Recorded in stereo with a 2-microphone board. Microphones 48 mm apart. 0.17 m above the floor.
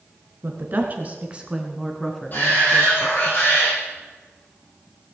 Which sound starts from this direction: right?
A woman speaking, at 0.4 s.